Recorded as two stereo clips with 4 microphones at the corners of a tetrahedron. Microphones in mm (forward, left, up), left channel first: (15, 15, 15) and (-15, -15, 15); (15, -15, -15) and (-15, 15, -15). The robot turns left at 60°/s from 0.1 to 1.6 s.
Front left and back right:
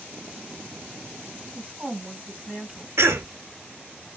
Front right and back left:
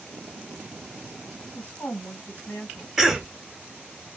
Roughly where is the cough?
Behind right.